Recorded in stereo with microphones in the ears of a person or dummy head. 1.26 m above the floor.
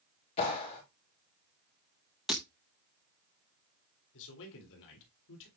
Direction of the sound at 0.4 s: 35° left (ahead or behind).